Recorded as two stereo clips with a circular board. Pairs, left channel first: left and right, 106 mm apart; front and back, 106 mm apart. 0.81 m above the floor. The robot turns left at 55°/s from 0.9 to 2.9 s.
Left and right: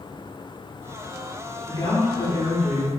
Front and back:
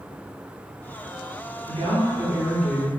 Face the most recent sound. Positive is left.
turn(degrees=80)